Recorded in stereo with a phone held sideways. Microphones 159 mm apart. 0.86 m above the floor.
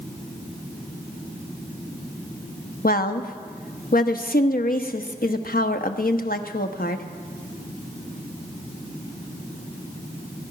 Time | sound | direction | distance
2.8 | a woman speaking | 65° left (ahead or behind) | 1.0 m